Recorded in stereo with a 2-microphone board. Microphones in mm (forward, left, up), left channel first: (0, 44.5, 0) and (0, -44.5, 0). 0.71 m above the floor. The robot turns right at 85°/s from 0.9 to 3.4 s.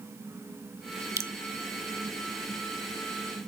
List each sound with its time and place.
1.2 s dripping: 35° right (ahead or behind), 0.6 m; by 1.3 s 25° right (ahead or behind), 0.6 m